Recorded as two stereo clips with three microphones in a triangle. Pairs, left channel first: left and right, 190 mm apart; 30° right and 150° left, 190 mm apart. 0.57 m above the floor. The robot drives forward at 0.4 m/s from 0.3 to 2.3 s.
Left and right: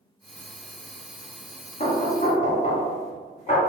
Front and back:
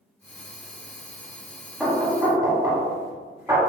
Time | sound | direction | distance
1.8 | knocking | 70° left | 0.9 m